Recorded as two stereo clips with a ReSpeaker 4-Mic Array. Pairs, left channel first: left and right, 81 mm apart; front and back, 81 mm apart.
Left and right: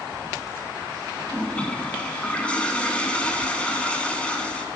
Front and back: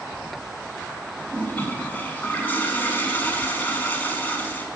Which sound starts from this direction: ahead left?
A toilet flushing, at 1.3 s.